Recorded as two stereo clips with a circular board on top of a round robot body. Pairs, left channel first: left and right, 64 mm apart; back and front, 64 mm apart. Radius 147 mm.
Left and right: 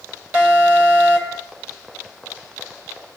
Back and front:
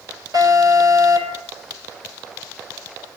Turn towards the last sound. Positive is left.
turn(degrees=-20)